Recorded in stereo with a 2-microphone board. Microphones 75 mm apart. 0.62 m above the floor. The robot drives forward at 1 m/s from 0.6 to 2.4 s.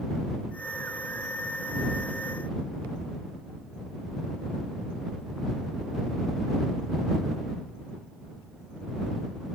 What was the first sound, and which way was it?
Only background noise.